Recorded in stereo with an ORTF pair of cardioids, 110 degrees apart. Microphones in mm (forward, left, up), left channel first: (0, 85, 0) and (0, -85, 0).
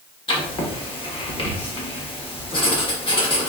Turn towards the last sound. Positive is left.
turn(degrees=30)